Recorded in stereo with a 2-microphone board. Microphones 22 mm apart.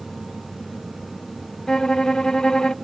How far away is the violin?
About 0.6 m.